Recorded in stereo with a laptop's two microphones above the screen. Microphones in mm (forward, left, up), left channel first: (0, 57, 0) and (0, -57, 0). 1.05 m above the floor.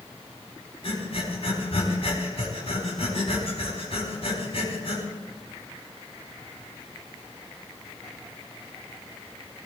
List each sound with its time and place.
0.8 s breathing: 60° left (ahead or behind), 4 m